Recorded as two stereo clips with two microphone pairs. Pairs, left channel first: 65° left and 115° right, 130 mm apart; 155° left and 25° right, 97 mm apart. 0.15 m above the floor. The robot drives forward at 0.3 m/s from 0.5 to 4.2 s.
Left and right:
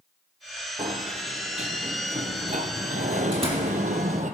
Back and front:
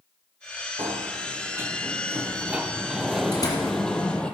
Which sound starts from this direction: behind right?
A door slam, at 3.3 s.